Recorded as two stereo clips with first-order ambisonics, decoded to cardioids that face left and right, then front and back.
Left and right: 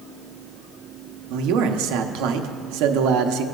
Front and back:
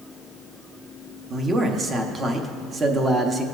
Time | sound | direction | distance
1.3 | a man speaking | 110° right | 1.0 m